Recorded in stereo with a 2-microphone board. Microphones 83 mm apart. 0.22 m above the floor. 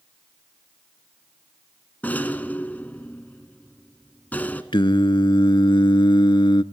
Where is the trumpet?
I don't hear a trumpet.